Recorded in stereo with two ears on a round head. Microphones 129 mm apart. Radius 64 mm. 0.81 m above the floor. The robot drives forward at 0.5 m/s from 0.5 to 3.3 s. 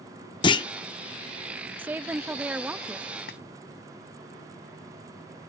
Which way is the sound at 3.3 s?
75° left (ahead or behind).